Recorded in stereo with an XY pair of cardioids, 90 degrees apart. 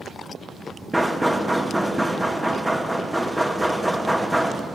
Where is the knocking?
5° right, 0.6 m.